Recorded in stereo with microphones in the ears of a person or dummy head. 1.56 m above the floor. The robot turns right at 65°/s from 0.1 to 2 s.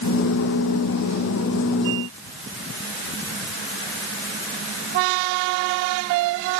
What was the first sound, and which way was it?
Only background noise.